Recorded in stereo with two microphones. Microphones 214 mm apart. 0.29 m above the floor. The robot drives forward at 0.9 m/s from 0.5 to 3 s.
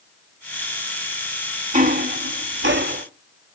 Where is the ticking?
35° right (ahead or behind), 0.9 m; by 3.0 s 45° right (ahead or behind), 0.7 m.